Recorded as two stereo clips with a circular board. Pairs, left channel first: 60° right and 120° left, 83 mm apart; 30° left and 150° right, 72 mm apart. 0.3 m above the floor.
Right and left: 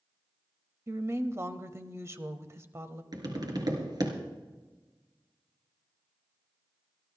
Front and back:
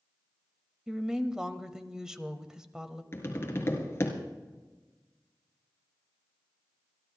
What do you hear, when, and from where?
0.9 s a woman speaking: 135° left, 1.0 m
3.1 s tapping: 85° left, 3 m